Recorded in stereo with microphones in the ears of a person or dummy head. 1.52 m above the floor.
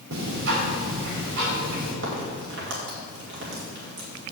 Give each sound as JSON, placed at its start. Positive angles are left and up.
{"t": 0.1, "sound": "ticking", "side_deg": -70, "distance_m": 3.5}
{"t": 2.0, "sound": "a crack", "side_deg": -70, "distance_m": 2.0}